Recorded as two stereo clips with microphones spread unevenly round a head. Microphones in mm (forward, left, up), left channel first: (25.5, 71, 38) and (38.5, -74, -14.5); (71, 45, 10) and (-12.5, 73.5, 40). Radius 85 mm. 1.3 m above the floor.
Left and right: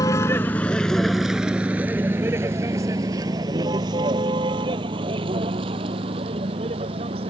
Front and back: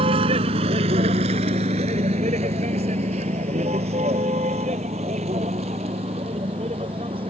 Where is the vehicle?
160° left; by 7.3 s 145° right.